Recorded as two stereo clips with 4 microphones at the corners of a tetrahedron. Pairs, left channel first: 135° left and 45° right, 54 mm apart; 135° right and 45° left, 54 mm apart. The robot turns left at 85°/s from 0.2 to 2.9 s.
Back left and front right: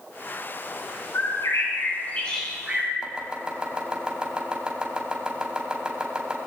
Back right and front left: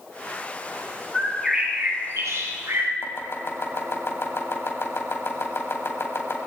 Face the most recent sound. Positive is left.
turn(degrees=-110)